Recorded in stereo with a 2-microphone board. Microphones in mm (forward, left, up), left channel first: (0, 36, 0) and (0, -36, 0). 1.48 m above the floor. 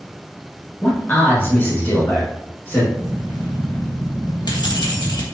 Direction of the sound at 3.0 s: 80° left.